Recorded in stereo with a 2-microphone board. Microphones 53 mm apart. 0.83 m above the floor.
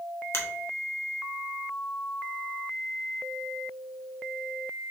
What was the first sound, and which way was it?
A finger snap, 50° left (ahead or behind).